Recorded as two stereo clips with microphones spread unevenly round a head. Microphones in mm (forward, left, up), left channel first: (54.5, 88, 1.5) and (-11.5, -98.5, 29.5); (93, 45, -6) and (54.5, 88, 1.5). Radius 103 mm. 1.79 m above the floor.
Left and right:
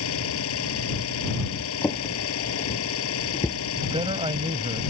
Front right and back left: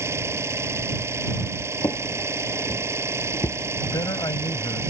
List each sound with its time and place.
0.0 s an engine running: 95° left
1.8 s a drawer: 10° right
3.8 s a man speaking: 45° right